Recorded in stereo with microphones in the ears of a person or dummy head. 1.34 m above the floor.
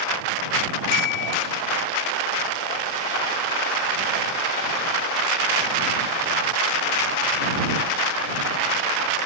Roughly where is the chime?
Left.